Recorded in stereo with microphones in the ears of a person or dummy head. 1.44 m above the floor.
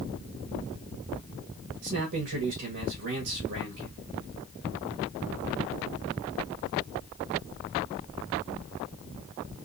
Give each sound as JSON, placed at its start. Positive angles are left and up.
{"t": 1.8, "sound": "a man speaking", "side_deg": -50, "distance_m": 1.3}